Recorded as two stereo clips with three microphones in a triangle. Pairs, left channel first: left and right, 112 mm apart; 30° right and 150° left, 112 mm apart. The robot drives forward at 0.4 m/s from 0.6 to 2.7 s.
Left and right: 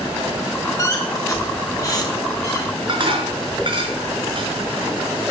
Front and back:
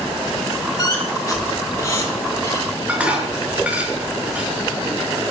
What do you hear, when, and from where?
0.8 s a squeak: 30° left, 5 m; by 2.7 s 35° left, 4 m
2.9 s dishes clattering: 130° right, 5 m